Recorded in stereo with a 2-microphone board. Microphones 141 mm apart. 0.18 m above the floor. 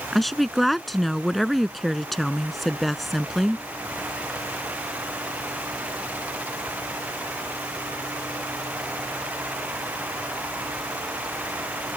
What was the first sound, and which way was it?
A woman speaking, centre (ahead or behind).